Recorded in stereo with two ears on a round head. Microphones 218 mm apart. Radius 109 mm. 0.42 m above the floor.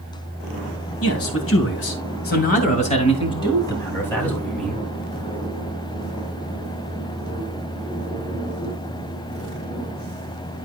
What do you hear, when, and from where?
1.0 s a man speaking: 65° left (ahead or behind), 2.5 m; by 4.8 s centre (ahead or behind), 3 m